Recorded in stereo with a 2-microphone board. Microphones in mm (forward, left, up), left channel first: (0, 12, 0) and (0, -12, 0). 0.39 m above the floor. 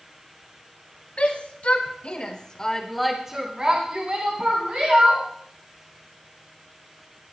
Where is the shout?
70° left (ahead or behind), 2.5 m; by 5.2 s 65° right (ahead or behind), 3.5 m.